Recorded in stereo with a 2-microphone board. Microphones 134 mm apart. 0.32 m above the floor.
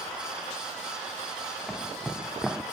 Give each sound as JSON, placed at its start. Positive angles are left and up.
{"t": 1.7, "sound": "footsteps", "side_deg": 0, "distance_m": 0.6}